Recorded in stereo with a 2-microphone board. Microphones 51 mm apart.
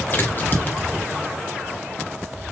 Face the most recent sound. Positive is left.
turn(degrees=35)  # may be behind; listen again after turning